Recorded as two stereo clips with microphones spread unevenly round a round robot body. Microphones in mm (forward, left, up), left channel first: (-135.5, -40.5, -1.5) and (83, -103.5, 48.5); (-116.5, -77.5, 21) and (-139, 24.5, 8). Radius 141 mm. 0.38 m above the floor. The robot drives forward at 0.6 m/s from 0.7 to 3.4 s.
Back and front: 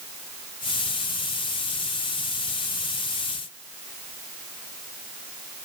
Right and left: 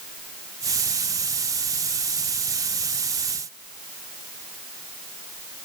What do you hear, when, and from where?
Only background noise.